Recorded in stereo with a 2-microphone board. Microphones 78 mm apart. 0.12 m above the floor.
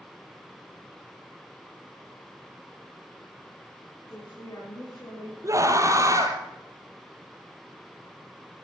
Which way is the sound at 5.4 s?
40° right (ahead or behind).